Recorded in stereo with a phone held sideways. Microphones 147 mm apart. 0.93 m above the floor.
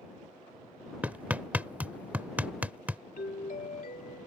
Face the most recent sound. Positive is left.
turn(degrees=70)  # may be behind; listen again after turning